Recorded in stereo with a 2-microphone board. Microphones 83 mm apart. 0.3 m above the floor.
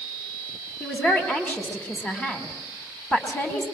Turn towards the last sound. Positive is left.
turn(degrees=15)  # may be behind; listen again after turning